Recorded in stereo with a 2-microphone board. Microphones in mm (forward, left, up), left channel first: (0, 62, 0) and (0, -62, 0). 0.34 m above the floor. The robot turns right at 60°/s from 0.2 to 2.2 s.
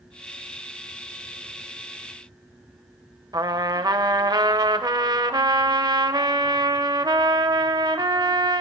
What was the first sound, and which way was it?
A trumpet, 30° right (ahead or behind).